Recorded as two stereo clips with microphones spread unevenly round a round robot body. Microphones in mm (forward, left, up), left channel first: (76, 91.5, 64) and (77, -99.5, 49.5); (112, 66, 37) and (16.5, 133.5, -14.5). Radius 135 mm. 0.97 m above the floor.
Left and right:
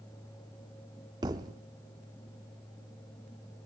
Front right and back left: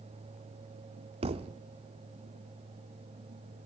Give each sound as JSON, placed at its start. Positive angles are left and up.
{"t": 1.2, "sound": "a thud", "azimuth_deg": -160, "distance_m": 0.5}